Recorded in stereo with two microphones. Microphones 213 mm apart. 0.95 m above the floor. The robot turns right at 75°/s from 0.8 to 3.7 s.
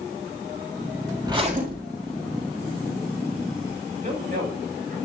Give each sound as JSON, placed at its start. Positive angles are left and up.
{"t": 1.2, "sound": "a zipper", "azimuth_deg": -165, "distance_m": 3.0}
{"t": 4.0, "sound": "a man speaking", "side_deg": -40, "distance_m": 6.0}